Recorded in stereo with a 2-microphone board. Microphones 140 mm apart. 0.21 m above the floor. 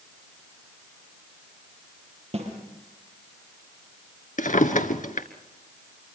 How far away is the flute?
No flute in this recording.